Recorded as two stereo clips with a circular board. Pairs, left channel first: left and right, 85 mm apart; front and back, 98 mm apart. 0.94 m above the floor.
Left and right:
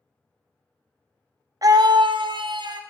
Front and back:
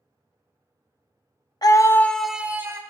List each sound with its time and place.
1.6 s a scream: 45° right, 0.6 m; by 2.8 s 120° right, 0.7 m